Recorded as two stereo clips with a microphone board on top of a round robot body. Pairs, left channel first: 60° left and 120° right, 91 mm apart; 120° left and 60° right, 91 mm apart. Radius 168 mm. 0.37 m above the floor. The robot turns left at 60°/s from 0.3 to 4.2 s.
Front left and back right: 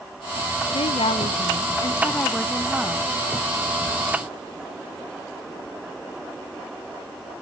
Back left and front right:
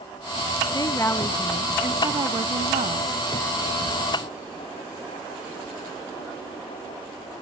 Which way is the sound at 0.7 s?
75° left.